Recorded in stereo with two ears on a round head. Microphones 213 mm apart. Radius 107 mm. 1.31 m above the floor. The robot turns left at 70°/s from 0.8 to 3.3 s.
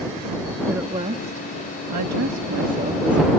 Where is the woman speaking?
10° right; by 3.3 s 175° left.